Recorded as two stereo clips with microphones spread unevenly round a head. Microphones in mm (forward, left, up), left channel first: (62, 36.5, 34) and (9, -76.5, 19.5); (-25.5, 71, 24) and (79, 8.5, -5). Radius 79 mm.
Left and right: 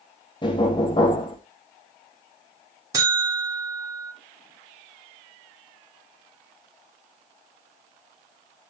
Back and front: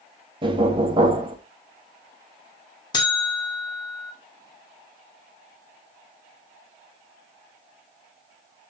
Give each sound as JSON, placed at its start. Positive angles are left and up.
{"t": 0.4, "sound": "knocking", "azimuth_deg": 20, "distance_m": 1.3}
{"t": 2.9, "sound": "a buzzer", "azimuth_deg": 175, "distance_m": 1.4}